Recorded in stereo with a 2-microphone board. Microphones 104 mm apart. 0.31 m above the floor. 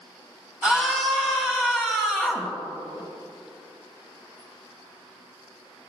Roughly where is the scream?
Centre.